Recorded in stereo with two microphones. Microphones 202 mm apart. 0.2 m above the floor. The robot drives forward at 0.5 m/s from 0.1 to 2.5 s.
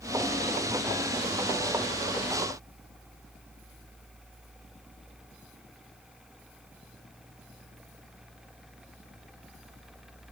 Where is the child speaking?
No child speaking in this recording.